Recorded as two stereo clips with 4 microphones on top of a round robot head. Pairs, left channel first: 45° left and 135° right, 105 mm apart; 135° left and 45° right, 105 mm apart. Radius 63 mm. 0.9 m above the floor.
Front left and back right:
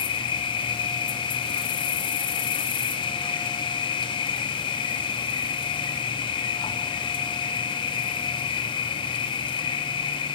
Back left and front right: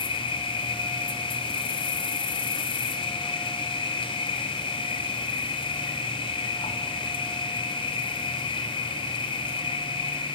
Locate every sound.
0.0 s an insect: 90° left, 1.2 m